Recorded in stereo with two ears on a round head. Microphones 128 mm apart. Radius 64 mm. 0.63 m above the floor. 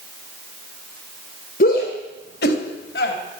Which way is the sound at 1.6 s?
65° left (ahead or behind).